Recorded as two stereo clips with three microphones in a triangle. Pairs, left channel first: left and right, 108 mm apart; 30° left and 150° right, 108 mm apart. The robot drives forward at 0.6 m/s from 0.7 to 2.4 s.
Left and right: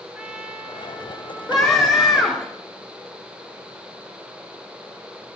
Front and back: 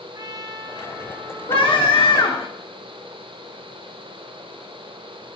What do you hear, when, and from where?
0.1 s a trumpet: 165° right, 0.7 m; by 2.5 s 175° right, 1.5 m
1.5 s a scream: straight ahead, 1.8 m